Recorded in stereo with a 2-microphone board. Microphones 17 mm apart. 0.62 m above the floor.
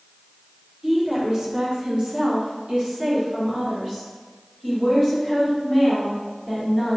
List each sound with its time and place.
0.8 s a woman speaking: 25° right (ahead or behind), 1.1 m; by 7.0 s 35° right (ahead or behind), 3.5 m